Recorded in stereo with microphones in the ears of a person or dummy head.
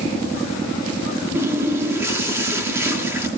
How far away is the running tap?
About 2.5 m.